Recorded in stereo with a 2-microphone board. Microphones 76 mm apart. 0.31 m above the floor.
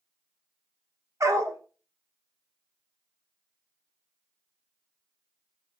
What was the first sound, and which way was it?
A dog barking, 45° right (ahead or behind).